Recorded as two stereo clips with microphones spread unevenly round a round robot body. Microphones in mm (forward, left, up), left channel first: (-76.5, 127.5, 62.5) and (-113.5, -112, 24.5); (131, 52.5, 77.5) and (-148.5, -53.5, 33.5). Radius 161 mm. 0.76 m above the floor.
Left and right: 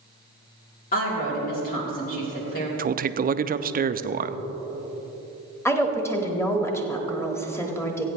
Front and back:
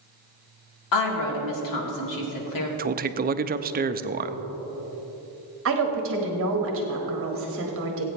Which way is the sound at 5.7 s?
165° left.